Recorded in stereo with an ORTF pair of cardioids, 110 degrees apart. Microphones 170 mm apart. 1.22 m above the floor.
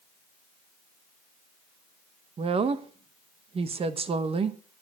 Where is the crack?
I don't hear a crack.